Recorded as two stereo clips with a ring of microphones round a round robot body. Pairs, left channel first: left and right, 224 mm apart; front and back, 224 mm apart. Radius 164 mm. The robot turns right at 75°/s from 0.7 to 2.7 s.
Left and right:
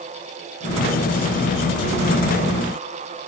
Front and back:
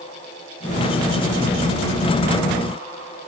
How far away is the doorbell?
I don't hear a doorbell.